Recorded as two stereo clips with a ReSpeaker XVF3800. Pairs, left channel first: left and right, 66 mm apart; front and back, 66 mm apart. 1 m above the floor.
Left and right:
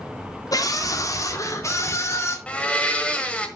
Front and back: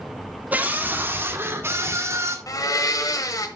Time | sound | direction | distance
0.5 | a scream | 115° left | 2.0 m
2.5 | a blender | 20° left | 1.5 m